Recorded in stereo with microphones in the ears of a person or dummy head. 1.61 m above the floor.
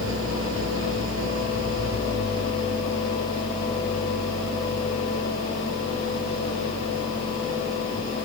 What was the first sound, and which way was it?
An engine running, 80° right.